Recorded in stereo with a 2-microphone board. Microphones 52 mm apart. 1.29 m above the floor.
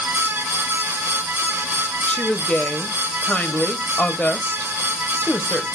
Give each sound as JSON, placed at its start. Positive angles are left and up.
{"t": 2.1, "sound": "a woman speaking", "side_deg": 25, "distance_m": 0.8}